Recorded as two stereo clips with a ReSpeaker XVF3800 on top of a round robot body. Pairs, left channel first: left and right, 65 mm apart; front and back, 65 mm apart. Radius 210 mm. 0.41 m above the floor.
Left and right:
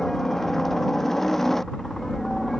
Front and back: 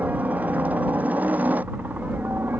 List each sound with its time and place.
0.0 s a helicopter: 165° left; by 2.6 s 170° left